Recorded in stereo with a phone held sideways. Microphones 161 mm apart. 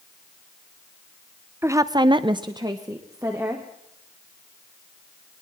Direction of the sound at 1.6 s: 15° right (ahead or behind).